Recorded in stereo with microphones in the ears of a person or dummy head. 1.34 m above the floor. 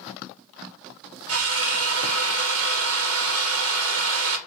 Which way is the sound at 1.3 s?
80° right.